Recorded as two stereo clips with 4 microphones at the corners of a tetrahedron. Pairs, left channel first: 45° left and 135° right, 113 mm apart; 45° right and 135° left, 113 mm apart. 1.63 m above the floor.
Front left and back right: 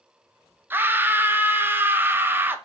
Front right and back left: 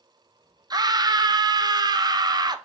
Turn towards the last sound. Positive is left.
turn(degrees=165)